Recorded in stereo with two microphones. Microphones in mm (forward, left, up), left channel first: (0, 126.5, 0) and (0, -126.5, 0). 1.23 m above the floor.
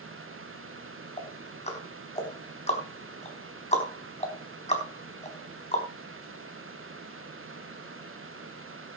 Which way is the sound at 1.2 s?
25° left (ahead or behind).